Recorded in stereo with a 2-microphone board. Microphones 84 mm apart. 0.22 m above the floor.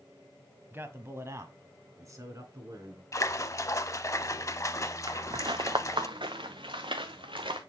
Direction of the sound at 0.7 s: 25° right (ahead or behind).